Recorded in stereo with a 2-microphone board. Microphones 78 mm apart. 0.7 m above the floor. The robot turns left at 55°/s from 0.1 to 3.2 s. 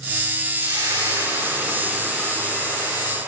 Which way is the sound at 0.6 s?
95° right.